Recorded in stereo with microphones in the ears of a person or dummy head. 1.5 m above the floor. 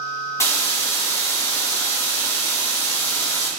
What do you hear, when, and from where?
0.4 s a hiss: 15° left (ahead or behind), 2.5 m